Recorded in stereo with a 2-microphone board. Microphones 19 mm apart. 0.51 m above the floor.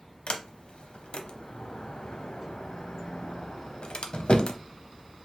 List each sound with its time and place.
0.3 s a sliding door: 75° left (ahead or behind), 0.6 m